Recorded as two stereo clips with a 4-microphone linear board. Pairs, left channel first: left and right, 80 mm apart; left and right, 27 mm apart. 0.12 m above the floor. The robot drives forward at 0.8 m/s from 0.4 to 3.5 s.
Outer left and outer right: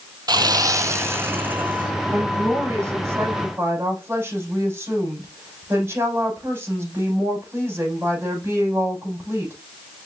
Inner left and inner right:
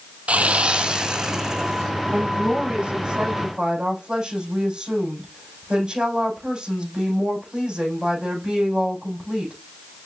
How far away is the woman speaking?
About 5 m.